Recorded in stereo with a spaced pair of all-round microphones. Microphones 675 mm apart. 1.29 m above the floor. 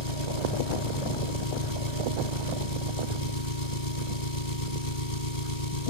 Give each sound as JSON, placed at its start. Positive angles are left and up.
{"t": 0.0, "sound": "an engine running", "side_deg": 70}